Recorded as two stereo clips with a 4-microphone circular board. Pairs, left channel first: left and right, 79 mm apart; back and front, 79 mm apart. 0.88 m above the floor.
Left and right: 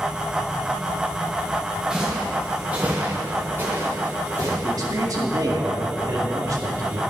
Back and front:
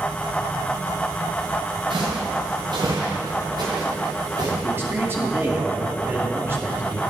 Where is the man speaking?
55° right, 2 m.